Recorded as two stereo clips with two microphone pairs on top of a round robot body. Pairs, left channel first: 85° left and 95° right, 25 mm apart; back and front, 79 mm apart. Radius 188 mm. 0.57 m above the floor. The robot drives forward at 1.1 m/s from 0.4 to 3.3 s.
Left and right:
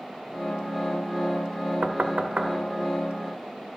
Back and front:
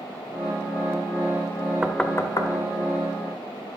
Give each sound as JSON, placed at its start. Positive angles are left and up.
{"t": 1.8, "sound": "knocking", "azimuth_deg": -70, "distance_m": 0.6}